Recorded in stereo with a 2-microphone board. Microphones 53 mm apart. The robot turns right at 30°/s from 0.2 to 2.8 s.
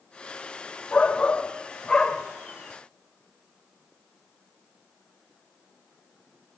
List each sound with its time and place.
0.9 s a shout: 25° left (ahead or behind), 1.3 m; by 2.2 s 15° left (ahead or behind), 1.3 m